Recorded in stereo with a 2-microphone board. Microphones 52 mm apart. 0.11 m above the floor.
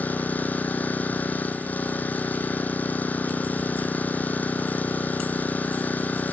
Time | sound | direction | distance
0.0 | an engine running | 35° left (ahead or behind) | 0.9 m